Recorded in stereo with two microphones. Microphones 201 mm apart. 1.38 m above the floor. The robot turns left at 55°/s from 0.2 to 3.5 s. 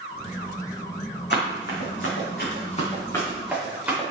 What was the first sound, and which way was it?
Running footsteps, 60° left (ahead or behind).